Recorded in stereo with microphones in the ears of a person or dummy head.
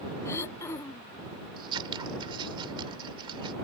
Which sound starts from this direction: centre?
Throat clearing, at 0.2 s.